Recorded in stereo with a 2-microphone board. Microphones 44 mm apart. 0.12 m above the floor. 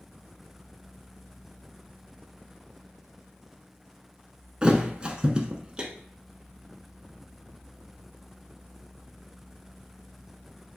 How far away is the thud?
About 0.5 m.